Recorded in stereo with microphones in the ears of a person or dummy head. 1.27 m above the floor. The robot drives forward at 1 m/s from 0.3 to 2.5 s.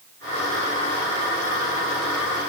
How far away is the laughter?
No laughter in this recording.